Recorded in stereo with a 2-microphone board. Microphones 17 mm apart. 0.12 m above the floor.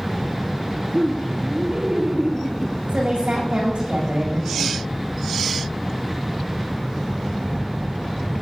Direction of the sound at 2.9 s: 80° right.